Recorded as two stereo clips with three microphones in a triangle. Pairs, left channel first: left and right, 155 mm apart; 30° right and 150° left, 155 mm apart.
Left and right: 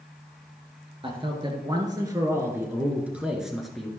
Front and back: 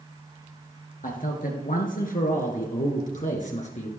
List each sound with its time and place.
1.0 s a man speaking: 40° right, 2.5 m; by 3.9 s 5° left, 2.5 m